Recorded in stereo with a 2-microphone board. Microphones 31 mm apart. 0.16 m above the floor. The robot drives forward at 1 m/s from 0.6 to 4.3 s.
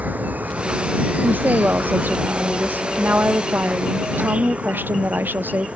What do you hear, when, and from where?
0.0 s an insect: 55° right (ahead or behind); by 5.8 s 40° right (ahead or behind)
1.2 s a woman speaking: 70° right (ahead or behind); by 5.7 s 80° right